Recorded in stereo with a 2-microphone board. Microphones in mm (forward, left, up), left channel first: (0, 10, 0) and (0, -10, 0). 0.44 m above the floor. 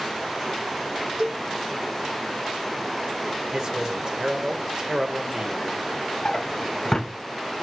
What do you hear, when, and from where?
1.2 s a cowbell: 35° right (ahead or behind), 2 m
3.5 s a man speaking: 35° right (ahead or behind), 1.7 m
6.2 s a drawer: 30° left (ahead or behind), 0.8 m